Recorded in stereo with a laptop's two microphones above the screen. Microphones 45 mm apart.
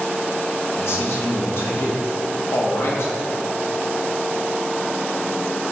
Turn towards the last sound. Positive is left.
turn(degrees=60)  # may be behind; listen again after turning